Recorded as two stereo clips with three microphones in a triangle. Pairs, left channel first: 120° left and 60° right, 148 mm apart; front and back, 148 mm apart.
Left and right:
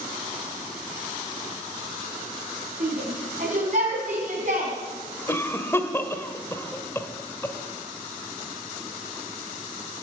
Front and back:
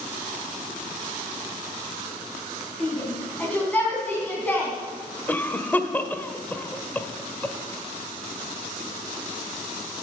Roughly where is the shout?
Right.